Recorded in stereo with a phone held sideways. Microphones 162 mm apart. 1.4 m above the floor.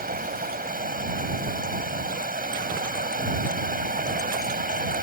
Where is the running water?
65° right (ahead or behind).